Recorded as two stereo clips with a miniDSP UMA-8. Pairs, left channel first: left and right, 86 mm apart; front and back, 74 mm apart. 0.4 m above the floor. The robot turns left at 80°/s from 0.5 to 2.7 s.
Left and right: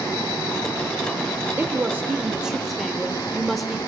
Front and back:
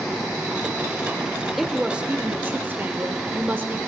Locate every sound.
1.6 s a woman speaking: 90° right, 1.0 m; by 3.8 s straight behind, 1.0 m